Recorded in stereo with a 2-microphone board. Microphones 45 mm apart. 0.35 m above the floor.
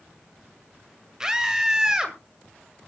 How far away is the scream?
About 1.7 m.